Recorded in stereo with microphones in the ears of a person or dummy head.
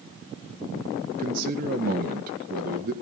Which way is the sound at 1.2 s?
45° right (ahead or behind).